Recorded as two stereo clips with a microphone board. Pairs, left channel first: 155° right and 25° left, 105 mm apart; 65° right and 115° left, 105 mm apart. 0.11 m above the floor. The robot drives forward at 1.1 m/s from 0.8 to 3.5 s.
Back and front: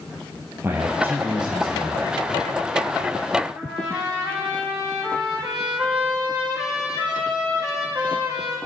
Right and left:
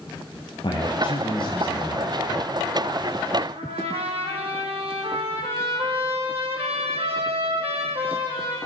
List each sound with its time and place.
0.6 s a man speaking: 45° right, 2.5 m; by 2.3 s 90° right, 2.0 m
3.5 s a trumpet: 105° left, 4.5 m